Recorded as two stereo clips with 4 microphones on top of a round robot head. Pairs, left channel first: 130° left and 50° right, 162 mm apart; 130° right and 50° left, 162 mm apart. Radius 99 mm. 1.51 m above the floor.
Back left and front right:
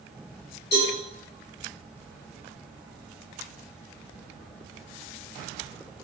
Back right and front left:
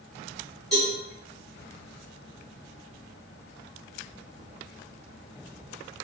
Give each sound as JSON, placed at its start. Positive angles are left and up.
{"t": 0.7, "sound": "a cowbell", "azimuth_deg": 145, "distance_m": 1.5}